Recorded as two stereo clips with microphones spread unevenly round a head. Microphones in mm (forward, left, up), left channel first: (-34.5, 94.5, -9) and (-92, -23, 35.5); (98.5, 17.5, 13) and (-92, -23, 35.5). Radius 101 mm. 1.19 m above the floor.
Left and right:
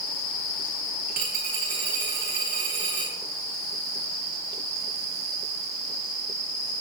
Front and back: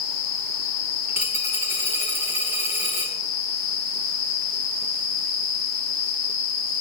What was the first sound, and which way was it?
A dropped coin, 90° right.